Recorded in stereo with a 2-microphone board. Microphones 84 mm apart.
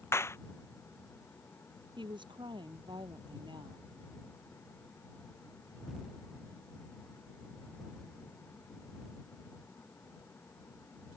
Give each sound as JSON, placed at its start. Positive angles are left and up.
{"t": 0.1, "sound": "a clap", "side_deg": 30}
{"t": 2.0, "sound": "a woman speaking", "side_deg": -70}